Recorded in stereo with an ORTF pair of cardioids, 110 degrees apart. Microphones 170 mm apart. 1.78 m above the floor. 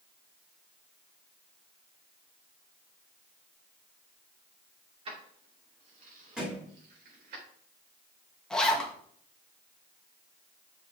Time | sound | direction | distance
5.0 | keys jangling | 35° right | 3 m
6.4 | a thud | 5° right | 3.5 m
8.5 | a zipper | 5° left | 1.6 m